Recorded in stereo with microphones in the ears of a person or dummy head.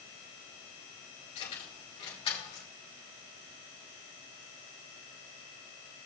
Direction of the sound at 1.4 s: 40° left (ahead or behind).